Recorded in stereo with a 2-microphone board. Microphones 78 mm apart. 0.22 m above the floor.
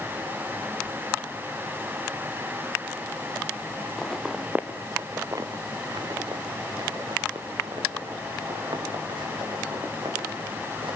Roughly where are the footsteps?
Centre.